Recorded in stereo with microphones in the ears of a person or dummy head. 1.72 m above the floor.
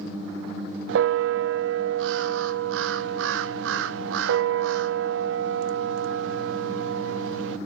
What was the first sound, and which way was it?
A bell, 70° right (ahead or behind).